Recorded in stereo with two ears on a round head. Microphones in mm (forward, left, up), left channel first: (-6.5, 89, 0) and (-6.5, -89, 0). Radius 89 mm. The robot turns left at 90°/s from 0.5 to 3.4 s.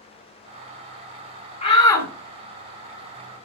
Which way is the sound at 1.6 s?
60° left.